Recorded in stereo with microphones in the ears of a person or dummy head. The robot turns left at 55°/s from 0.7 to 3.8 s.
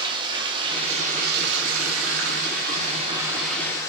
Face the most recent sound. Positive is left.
turn(degrees=165)